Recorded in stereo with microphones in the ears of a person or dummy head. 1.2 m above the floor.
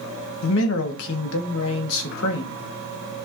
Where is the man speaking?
75° left (ahead or behind), 1.5 m.